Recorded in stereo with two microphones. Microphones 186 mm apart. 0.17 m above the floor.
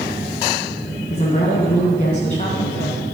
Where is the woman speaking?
40° left (ahead or behind), 1.3 m.